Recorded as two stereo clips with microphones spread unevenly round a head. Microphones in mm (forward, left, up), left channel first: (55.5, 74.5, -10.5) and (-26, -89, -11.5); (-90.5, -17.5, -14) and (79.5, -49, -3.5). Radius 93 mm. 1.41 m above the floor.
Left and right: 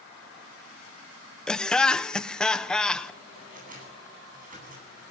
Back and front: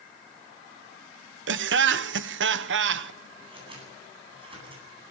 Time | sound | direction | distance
1.5 | laughter | 20° right | 1.1 m
3.4 | scissors | 70° right | 10 m